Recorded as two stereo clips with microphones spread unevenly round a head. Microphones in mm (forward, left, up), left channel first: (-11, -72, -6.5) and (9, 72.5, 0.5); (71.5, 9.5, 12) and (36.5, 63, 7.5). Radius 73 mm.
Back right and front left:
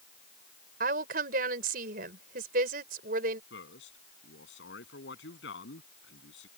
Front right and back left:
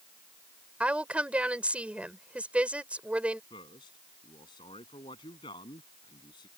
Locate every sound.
0.8 s a woman speaking: 50° left
3.5 s a man speaking: 90° right